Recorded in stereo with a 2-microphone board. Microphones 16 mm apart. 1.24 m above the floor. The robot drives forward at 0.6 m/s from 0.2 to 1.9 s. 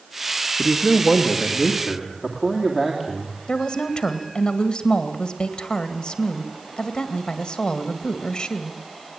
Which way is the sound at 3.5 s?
65° left (ahead or behind).